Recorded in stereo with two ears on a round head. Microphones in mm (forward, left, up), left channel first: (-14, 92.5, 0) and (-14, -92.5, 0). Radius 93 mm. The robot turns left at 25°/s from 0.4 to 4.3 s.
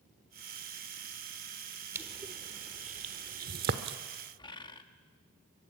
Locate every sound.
1.9 s crushing: 10° right (ahead or behind), 1.1 m; by 4.0 s 50° right (ahead or behind), 1.1 m
4.4 s a bird: 20° left (ahead or behind), 1.3 m